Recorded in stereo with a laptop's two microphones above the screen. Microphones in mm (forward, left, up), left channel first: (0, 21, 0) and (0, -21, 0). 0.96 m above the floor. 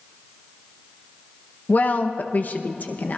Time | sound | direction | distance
1.7 | a woman speaking | 45° left (ahead or behind) | 0.8 m